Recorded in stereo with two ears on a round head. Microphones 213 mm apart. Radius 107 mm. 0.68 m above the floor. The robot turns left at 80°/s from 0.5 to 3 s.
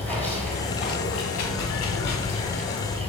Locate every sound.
0.0 s running water: 175° left, 1.7 m; by 3.1 s 25° right, 1.7 m